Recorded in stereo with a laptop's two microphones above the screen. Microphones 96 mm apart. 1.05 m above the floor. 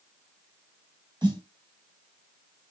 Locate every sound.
1.2 s a snare drum: 50° right (ahead or behind), 1.4 m